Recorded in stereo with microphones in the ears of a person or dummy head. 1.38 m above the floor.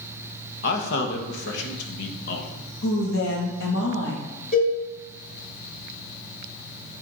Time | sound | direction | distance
0.6 | a man speaking | 60° left (ahead or behind) | 1.3 m
2.8 | a woman speaking | 65° left (ahead or behind) | 2.5 m
4.5 | a cowbell | 45° left (ahead or behind) | 3 m